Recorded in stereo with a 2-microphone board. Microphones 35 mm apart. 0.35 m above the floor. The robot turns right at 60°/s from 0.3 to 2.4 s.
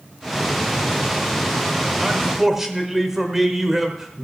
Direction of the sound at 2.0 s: 15° right (ahead or behind).